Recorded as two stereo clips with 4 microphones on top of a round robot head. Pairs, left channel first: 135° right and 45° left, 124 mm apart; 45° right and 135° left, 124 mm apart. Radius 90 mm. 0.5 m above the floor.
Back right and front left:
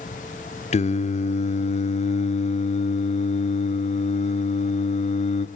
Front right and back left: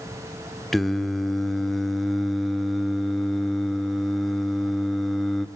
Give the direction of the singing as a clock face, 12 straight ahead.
4 o'clock.